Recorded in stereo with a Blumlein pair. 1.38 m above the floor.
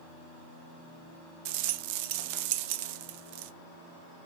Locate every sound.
1.4 s a rattle: 45° right, 0.5 m